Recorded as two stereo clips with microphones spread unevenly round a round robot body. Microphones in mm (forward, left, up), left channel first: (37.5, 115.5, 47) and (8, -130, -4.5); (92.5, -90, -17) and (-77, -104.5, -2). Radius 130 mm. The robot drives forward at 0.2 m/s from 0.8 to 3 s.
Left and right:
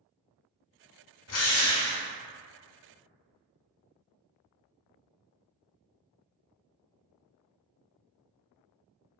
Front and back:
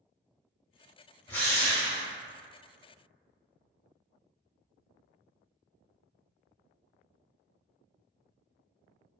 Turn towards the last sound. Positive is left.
turn(degrees=120)